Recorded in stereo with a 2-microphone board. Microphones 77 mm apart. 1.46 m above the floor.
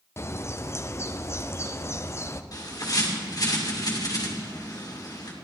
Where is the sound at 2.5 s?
50° left (ahead or behind), 2 m.